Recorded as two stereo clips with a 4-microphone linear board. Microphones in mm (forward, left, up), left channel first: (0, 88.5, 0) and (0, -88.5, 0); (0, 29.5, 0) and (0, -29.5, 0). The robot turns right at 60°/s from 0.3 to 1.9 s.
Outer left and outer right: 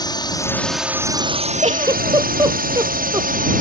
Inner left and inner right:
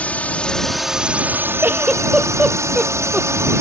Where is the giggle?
35° right (ahead or behind); by 3.3 s 20° right (ahead or behind).